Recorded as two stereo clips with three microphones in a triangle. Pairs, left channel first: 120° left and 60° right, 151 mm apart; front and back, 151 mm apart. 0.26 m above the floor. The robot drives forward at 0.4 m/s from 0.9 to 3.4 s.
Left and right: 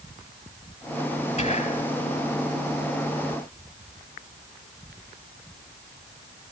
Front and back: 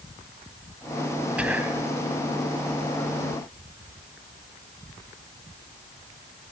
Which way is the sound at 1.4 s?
100° left.